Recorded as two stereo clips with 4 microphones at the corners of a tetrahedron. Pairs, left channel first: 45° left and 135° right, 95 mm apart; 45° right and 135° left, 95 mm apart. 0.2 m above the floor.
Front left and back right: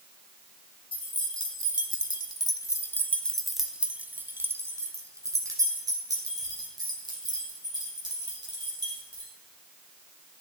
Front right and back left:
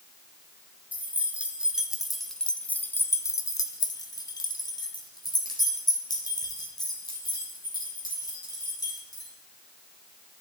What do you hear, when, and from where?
0.9 s keys jangling: 65° left, 1.5 m; by 9.3 s 95° right, 4 m